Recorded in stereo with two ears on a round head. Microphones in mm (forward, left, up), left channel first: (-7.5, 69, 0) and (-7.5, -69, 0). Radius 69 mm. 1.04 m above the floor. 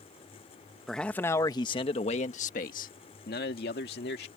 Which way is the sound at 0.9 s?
Centre (ahead or behind).